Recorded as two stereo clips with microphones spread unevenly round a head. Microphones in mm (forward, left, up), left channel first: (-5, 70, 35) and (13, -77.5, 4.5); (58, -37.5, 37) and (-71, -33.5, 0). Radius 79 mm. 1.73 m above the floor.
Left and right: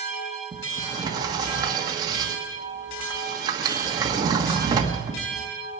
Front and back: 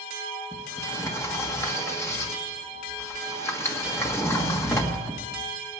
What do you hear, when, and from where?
0.5 s a sliding door: 15° right, 1.3 m